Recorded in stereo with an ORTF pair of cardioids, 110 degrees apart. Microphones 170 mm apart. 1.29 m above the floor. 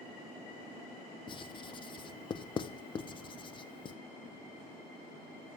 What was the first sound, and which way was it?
Writing, 30° left.